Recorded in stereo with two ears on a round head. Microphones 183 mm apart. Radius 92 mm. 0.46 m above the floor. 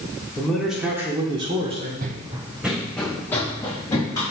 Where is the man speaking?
5° left (ahead or behind), 1.3 m; by 1.9 s 35° right (ahead or behind), 1.5 m.